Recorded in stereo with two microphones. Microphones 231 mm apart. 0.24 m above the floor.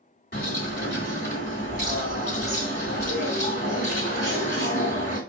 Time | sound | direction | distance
0.3 | a bird | 45° left (ahead or behind) | 2 m